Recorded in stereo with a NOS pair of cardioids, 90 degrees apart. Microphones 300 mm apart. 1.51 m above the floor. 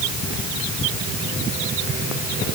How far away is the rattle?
I don't hear a rattle.